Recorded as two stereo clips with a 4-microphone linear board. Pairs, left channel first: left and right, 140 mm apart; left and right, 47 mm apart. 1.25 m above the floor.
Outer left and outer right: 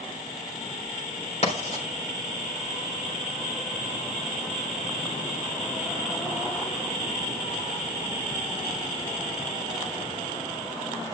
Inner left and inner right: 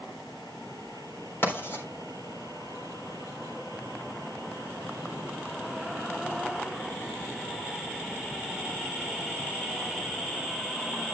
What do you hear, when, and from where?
1.4 s writing: 55° left (ahead or behind), 4 m